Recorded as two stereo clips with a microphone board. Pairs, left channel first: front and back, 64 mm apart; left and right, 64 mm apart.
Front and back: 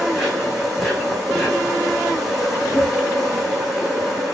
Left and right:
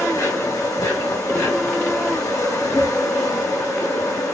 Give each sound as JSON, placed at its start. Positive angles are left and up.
{"t": 0.0, "sound": "an insect", "azimuth_deg": 95, "distance_m": 3.0}